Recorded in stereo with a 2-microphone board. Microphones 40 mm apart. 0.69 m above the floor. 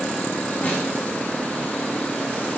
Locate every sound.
0.6 s a snare drum: 40° left (ahead or behind), 5.5 m